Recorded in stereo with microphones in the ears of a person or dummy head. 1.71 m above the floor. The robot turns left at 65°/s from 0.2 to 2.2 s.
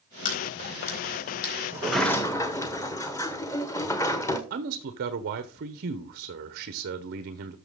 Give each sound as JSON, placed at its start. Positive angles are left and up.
{"t": 0.2, "sound": "a crack", "side_deg": 45, "distance_m": 4.0}
{"t": 1.7, "sound": "a sliding door", "azimuth_deg": -165, "distance_m": 1.1}
{"t": 4.5, "sound": "a man speaking", "side_deg": -55, "distance_m": 0.9}